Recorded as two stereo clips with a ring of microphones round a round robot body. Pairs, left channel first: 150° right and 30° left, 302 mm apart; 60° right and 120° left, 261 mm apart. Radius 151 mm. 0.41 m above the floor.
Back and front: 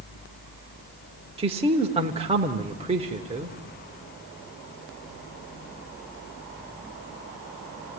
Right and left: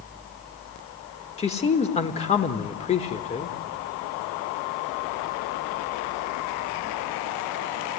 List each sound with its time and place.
1.4 s a man speaking: 20° right, 1.1 m